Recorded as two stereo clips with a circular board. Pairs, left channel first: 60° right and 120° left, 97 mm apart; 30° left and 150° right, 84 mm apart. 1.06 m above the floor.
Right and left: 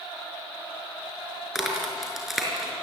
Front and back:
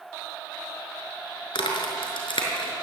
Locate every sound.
1.6 s a crack: 30° left, 5.5 m